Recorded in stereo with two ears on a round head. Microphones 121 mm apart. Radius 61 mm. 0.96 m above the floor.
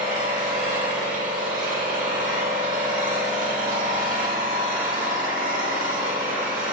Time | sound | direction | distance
0.0 | an engine running | 60° right (ahead or behind) | 1.5 m